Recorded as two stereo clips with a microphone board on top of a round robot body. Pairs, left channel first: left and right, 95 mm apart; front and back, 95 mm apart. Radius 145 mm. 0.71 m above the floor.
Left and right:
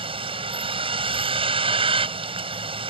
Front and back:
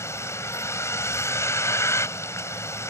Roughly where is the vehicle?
Ahead right.